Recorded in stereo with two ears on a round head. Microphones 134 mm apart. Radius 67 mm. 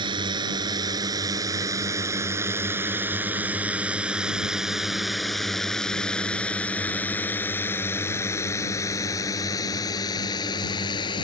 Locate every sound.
0.0 s a drone: 30° right (ahead or behind); by 11.2 s 30° left (ahead or behind)